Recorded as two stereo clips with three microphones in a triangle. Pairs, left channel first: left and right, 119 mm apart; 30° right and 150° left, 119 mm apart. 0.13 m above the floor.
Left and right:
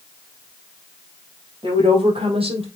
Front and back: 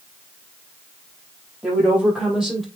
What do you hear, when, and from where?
1.6 s a woman speaking: 130° right, 4.5 m; by 2.6 s 120° right, 4 m